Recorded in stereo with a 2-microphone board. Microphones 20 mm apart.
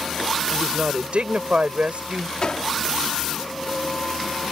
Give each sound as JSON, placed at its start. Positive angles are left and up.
{"t": 0.5, "sound": "a woman speaking", "side_deg": -75}
{"t": 2.4, "sound": "a gunshot", "side_deg": 50}